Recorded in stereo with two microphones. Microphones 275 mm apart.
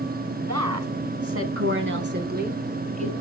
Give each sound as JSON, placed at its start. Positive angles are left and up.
{"t": 0.4, "sound": "a woman speaking", "side_deg": -70, "distance_m": 3.0}